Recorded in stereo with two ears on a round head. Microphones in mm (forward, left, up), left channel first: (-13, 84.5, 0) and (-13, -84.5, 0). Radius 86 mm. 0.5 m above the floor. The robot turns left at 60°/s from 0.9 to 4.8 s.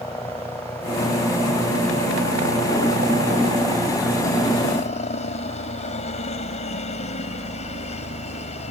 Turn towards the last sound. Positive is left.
turn(degrees=140)